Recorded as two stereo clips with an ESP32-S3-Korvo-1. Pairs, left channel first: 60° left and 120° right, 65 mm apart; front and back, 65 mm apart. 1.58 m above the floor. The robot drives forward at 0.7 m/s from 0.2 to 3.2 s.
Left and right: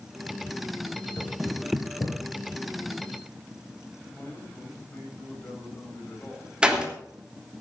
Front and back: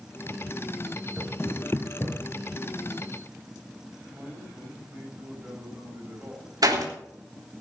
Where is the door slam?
165° left, 3 m.